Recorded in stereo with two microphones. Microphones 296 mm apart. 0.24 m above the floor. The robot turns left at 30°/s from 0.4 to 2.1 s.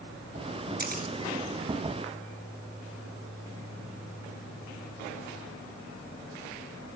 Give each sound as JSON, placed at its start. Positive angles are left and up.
{"t": 0.8, "sound": "a camera shutter", "side_deg": -35, "distance_m": 1.7}